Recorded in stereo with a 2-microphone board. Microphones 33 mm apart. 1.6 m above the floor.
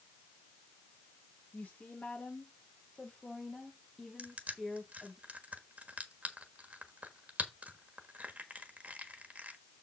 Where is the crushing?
50° right (ahead or behind), 1.3 m.